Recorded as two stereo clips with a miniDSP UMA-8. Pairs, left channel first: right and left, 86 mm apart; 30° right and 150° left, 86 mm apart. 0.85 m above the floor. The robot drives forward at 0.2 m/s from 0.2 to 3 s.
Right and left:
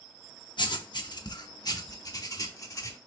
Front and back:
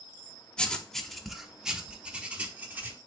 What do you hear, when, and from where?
0.6 s writing: 110° right, 0.6 m; by 3.0 s 140° right, 0.9 m